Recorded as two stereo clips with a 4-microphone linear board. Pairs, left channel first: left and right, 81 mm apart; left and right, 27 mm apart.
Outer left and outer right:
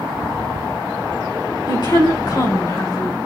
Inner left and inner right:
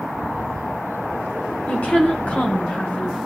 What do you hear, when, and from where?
1.7 s a woman speaking: 60° left (ahead or behind), 3 m; by 3.2 s 70° left (ahead or behind), 4.5 m